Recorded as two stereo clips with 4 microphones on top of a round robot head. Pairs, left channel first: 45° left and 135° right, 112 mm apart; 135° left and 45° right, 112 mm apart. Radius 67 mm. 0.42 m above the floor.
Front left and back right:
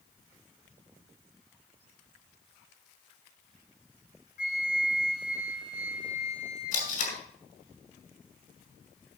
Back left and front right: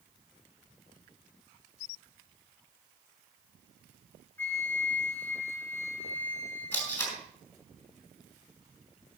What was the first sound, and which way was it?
A flute, 60° left.